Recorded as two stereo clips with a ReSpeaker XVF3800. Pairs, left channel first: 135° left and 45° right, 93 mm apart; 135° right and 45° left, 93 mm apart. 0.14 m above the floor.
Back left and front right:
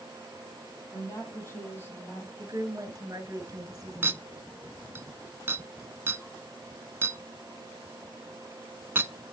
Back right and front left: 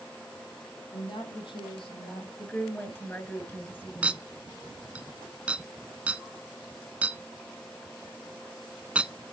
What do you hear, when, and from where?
0.9 s a woman speaking: 165° right, 5.5 m; by 2.3 s 155° right, 4.5 m
2.4 s a woman speaking: 75° right, 2 m
4.0 s a clink: 15° right, 0.7 m